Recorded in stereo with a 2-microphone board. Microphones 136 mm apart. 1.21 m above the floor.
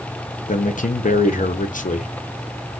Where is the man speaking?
70° left (ahead or behind), 0.6 m.